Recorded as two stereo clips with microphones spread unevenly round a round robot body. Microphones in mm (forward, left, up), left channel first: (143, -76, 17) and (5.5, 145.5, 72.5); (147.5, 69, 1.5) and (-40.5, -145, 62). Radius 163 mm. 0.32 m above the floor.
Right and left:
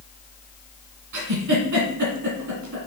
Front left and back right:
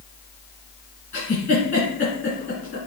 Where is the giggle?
130° left, 1.6 m.